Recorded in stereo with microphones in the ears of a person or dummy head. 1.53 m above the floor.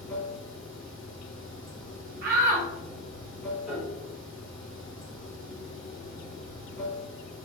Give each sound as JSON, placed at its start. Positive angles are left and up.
{"t": 0.0, "sound": "running water", "side_deg": -5, "distance_m": 2.0}
{"t": 2.2, "sound": "a shout", "side_deg": -55, "distance_m": 0.6}
{"t": 3.7, "sound": "a piano", "side_deg": -5, "distance_m": 1.3}